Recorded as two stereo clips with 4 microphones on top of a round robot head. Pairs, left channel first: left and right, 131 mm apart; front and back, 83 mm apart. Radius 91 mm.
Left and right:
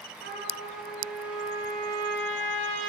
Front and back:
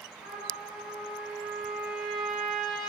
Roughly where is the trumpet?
Right.